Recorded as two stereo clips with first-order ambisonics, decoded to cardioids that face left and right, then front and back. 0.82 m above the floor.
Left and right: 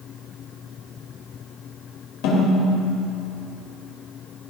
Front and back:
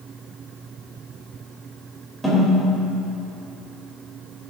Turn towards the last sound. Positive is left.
turn(degrees=100)